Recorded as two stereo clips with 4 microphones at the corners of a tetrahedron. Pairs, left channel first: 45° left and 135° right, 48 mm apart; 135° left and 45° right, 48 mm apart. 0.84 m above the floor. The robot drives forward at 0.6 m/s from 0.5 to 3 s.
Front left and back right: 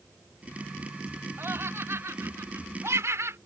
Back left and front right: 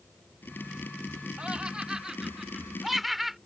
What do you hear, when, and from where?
1.4 s laughter: 110° right; by 3.4 s 130° right